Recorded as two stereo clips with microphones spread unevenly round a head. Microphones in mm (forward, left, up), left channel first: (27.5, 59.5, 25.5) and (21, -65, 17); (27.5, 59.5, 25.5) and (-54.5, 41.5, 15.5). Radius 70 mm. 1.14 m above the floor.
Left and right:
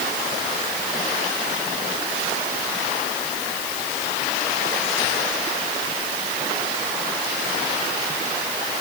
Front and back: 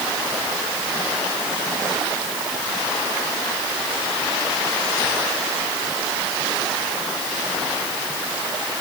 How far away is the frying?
I don't hear frying.